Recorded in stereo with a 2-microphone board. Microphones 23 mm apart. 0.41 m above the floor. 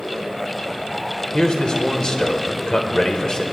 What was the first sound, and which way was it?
A man speaking, 40° left (ahead or behind).